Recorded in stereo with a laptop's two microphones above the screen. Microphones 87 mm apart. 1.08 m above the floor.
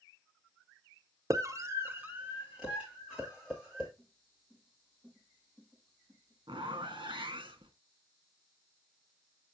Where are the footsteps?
Centre (ahead or behind), 5 m; by 7.2 s 25° right (ahead or behind), 5.5 m.